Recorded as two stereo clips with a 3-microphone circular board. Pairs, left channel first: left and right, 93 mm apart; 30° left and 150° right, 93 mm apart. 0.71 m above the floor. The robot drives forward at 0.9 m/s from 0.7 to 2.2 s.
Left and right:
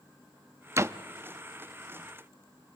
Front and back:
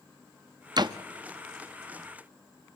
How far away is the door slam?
About 0.5 m.